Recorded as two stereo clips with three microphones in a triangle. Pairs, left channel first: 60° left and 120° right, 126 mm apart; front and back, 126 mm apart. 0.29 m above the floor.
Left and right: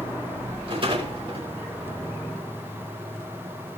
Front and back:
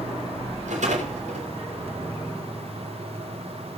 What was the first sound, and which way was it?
A rattle, 165° right.